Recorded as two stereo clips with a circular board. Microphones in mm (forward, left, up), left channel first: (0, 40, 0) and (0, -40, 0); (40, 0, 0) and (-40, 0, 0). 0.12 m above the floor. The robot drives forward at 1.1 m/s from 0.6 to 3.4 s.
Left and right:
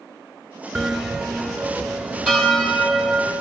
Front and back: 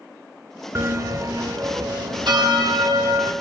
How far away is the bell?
About 0.9 m.